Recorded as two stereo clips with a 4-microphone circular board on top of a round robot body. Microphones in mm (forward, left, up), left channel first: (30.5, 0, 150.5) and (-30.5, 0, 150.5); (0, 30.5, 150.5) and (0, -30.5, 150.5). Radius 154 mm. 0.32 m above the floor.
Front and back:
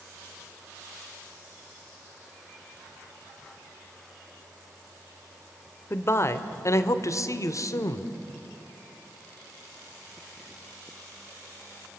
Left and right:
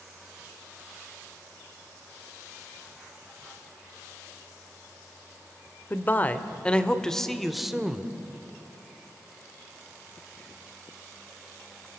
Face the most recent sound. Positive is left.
turn(degrees=-10)